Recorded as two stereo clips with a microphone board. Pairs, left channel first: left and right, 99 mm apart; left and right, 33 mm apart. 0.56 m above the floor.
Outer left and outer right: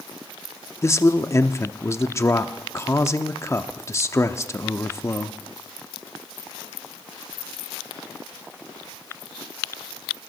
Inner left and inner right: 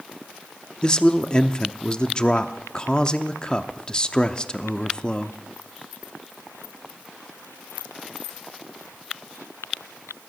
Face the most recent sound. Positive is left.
turn(degrees=30)  # may be behind; listen again after turning